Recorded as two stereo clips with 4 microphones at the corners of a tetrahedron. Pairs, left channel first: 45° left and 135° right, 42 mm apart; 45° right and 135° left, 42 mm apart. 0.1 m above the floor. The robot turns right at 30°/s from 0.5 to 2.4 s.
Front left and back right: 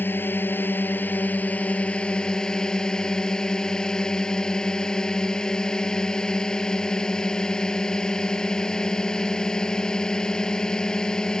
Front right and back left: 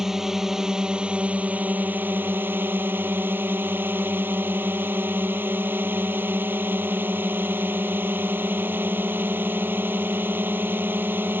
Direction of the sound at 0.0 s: 55° left.